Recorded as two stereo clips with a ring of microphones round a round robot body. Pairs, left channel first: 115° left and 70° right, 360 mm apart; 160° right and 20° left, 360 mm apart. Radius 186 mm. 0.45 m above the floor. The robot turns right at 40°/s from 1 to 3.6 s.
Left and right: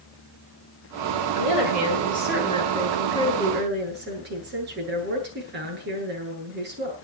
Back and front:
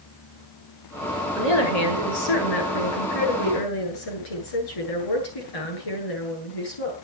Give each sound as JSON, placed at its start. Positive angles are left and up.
{"t": 1.4, "sound": "a woman speaking", "azimuth_deg": 140, "distance_m": 9.0}